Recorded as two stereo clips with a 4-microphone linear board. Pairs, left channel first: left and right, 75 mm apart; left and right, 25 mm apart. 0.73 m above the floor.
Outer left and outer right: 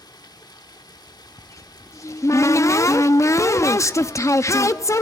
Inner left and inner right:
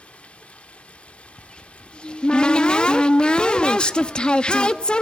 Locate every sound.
0.0 s running water: 75° left (ahead or behind), 1.1 m
1.4 s a cupboard door: 45° left (ahead or behind), 0.7 m